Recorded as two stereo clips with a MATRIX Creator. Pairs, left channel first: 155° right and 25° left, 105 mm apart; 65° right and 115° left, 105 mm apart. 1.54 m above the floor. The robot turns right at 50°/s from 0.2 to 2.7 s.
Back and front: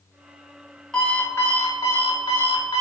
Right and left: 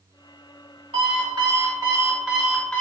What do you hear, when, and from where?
0.9 s an alarm clock: 120° left, 1.8 m; by 2.8 s 150° right, 1.8 m